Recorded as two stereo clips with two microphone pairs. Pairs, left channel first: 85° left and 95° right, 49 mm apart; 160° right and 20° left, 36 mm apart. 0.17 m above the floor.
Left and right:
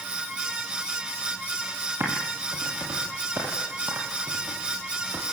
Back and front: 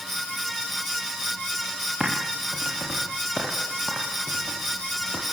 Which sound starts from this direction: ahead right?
Typing on a keyboard, at 2.0 s.